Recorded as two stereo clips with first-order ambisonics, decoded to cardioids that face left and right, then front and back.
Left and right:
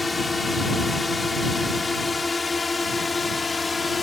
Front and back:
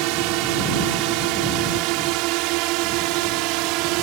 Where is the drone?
170° left; by 4.0 s 165° left.